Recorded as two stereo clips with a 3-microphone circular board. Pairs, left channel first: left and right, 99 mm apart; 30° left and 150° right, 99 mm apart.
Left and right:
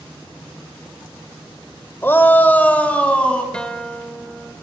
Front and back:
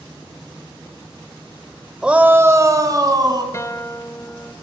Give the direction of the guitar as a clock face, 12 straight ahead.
11 o'clock.